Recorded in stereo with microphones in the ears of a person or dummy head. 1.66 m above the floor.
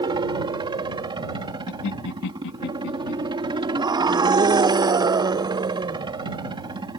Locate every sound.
0.0 s a helicopter: 20° right (ahead or behind)
1.7 s laughter: 70° left (ahead or behind)
3.8 s a scream: 20° right (ahead or behind)